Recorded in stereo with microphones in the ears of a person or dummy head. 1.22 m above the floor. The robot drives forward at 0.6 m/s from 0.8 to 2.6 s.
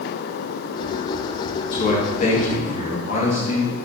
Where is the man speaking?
55° left (ahead or behind), 2.0 m; by 3.8 s 45° left (ahead or behind), 2.5 m.